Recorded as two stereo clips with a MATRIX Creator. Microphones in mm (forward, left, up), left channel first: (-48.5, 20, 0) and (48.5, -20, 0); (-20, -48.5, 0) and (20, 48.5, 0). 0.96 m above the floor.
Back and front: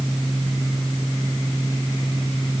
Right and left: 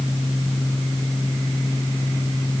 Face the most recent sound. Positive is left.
No sound to turn to.